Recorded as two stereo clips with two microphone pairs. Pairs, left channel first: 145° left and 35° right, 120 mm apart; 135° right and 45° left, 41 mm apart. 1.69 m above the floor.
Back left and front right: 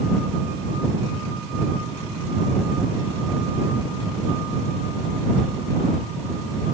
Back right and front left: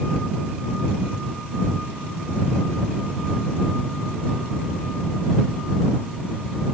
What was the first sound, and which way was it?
Only background noise.